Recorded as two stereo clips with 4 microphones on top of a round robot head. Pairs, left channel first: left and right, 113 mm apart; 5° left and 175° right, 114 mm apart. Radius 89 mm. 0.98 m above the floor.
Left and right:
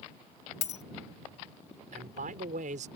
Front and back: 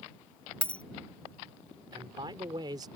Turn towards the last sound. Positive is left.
turn(degrees=-110)